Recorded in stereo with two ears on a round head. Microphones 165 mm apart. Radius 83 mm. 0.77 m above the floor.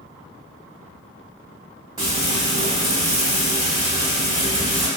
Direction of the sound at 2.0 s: 25° right (ahead or behind).